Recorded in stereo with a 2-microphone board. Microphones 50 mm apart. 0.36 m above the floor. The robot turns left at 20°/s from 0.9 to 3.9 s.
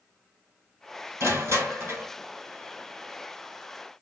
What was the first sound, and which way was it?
Crushing, 70° right (ahead or behind).